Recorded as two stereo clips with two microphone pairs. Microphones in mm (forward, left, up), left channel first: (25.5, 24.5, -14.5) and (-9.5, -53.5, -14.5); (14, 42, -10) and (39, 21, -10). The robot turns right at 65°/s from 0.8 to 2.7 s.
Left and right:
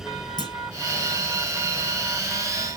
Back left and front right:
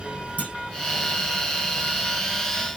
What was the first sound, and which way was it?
A clunk, 100° left.